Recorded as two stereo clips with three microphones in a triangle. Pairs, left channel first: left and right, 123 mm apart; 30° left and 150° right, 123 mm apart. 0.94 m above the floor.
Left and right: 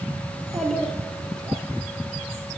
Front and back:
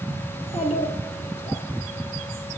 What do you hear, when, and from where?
0.3 s a child speaking: 5° left, 1.5 m